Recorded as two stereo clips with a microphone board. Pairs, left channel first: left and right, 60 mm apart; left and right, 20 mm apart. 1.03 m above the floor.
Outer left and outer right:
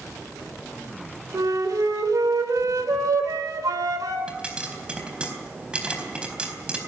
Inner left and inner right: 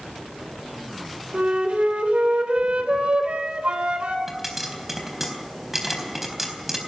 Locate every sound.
1.3 s a flute: 85° right, 3 m
4.3 s a pop: 15° right (ahead or behind), 4 m